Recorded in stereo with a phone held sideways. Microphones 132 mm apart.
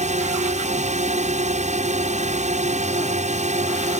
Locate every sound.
0.0 s a drone: 60° right (ahead or behind)